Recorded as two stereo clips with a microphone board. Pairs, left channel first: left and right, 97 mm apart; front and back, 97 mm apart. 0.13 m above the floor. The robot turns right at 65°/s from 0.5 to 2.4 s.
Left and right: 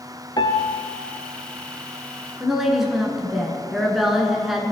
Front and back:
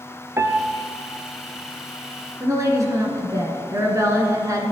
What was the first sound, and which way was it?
A piano, 120° left.